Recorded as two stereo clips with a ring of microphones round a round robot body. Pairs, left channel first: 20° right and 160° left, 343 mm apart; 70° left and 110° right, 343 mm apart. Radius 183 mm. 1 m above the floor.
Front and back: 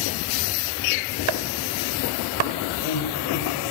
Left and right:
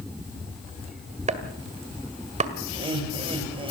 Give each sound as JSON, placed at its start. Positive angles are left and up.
{"t": 1.3, "sound": "chopping", "azimuth_deg": 175, "distance_m": 1.9}
{"t": 2.7, "sound": "laughter", "azimuth_deg": -35, "distance_m": 6.0}